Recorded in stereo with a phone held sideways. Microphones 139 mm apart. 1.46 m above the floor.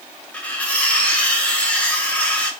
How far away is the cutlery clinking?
About 0.6 m.